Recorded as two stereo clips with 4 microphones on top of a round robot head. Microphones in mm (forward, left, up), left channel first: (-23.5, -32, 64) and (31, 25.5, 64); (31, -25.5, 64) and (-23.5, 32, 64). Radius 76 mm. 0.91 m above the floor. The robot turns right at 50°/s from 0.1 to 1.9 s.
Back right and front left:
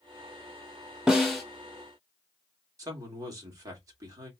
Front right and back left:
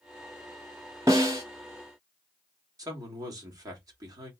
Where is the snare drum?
125° left, 0.6 m; by 1.4 s 145° left, 0.6 m.